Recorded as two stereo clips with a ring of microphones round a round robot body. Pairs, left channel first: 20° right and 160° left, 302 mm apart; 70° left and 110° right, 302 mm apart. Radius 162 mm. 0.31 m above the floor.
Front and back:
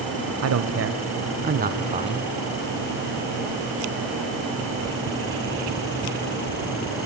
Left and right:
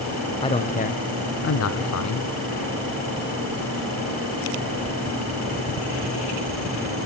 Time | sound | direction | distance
0.4 | a man speaking | 140° left | 1.6 m